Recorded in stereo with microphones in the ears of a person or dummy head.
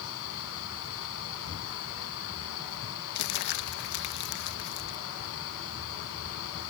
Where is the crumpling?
55° left (ahead or behind).